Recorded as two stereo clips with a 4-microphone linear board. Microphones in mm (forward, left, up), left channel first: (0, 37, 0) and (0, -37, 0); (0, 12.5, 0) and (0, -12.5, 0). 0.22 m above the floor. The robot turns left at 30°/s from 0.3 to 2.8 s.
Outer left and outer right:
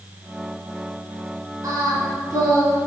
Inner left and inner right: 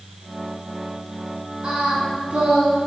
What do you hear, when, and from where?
1.6 s singing: 70° right, 2 m; by 2.8 s 105° right, 2 m